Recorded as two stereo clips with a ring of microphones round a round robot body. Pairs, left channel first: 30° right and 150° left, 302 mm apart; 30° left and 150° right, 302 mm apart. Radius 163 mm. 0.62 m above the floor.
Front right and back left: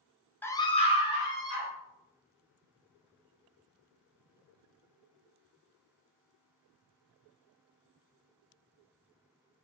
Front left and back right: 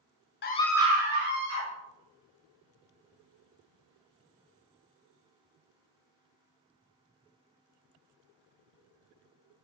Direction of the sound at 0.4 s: 50° left.